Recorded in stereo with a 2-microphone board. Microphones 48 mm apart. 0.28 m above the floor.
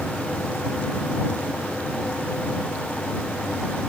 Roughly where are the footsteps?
No footsteps in this recording.